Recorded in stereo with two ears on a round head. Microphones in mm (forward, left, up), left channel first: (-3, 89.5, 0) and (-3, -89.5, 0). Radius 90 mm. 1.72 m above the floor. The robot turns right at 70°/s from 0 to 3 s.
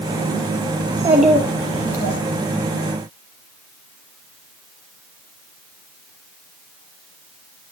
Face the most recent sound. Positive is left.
turn(degrees=120)